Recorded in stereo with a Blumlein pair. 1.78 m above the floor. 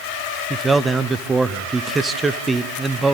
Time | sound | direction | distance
0.5 | a man speaking | 10° right | 0.9 m